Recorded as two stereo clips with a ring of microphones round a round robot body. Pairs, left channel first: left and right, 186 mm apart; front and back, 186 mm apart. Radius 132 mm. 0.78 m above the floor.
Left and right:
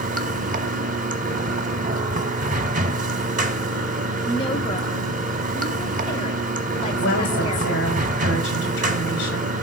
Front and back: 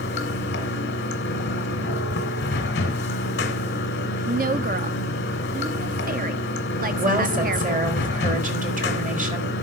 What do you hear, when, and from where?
0.0 s running water: 45° right, 1.4 m
4.2 s a woman speaking: 155° left, 0.9 m
7.0 s a woman speaking: 135° left, 3.5 m